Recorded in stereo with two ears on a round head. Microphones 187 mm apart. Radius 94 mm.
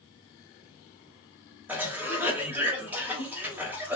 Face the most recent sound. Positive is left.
turn(degrees=-10)  # may be behind; listen again after turning